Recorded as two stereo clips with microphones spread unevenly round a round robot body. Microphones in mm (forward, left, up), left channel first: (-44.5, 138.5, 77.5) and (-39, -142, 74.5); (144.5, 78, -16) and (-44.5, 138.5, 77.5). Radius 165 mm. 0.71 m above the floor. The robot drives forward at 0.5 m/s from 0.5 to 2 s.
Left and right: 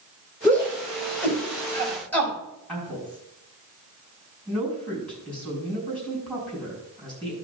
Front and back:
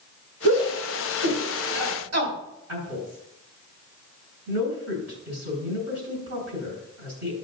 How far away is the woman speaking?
About 6 m.